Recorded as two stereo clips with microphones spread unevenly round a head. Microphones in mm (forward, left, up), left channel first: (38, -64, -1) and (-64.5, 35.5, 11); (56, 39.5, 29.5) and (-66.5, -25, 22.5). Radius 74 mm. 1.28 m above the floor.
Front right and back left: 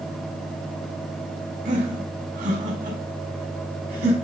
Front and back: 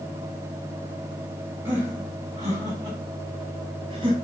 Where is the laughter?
135° left, 5 m; by 4.1 s 155° left, 4.5 m.